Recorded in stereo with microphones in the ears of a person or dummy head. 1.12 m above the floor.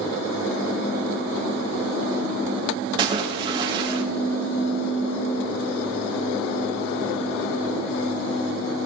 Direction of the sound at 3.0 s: 25° right (ahead or behind).